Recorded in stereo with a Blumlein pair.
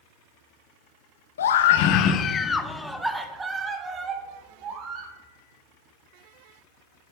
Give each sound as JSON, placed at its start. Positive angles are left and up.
{"t": 1.4, "sound": "a scream", "azimuth_deg": 65, "distance_m": 0.8}